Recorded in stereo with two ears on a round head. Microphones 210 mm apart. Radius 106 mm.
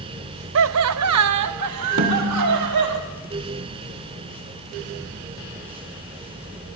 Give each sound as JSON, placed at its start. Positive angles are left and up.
{"t": 0.6, "sound": "laughter", "side_deg": -55, "distance_m": 0.5}
{"t": 2.0, "sound": "a snare drum", "side_deg": -50, "distance_m": 2.0}